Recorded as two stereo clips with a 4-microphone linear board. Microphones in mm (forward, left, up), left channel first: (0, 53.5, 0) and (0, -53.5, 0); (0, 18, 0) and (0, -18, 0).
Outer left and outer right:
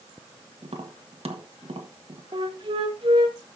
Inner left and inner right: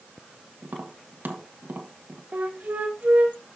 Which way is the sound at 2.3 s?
50° right (ahead or behind).